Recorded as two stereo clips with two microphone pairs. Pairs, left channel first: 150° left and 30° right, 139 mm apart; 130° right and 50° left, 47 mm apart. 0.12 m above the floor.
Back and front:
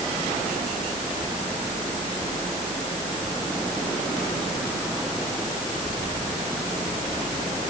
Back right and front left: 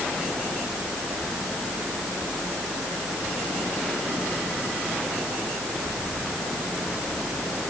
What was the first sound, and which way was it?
Only background noise.